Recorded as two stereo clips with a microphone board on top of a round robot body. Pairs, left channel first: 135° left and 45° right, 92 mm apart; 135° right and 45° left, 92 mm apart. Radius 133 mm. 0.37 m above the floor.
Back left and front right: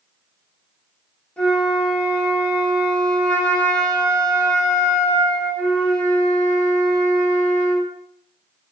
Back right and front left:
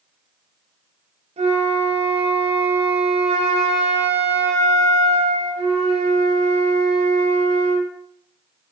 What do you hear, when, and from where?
1.4 s a flute: 55° left, 0.6 m